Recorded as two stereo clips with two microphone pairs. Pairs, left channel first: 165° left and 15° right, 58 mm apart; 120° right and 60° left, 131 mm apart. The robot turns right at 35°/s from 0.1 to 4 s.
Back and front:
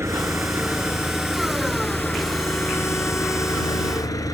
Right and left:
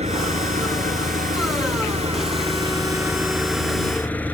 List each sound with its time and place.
0.0 s an engine running: 25° left; by 4.3 s 160° left